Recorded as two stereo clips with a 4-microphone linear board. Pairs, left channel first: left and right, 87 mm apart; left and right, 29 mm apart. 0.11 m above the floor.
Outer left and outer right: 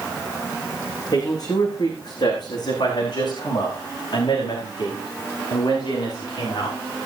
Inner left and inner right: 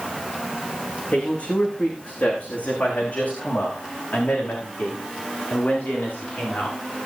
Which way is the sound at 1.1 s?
45° left (ahead or behind).